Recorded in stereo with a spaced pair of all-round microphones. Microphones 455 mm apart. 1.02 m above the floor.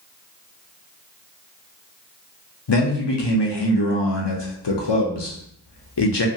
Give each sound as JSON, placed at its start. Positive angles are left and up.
{"t": 2.7, "sound": "a man speaking", "side_deg": 65, "distance_m": 0.7}